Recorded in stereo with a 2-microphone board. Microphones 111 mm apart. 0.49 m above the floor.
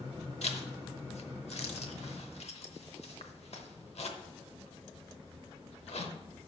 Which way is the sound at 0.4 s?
70° left (ahead or behind).